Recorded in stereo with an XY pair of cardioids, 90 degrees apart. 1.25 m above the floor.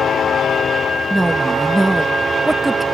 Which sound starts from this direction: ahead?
A woman speaking, at 1.1 s.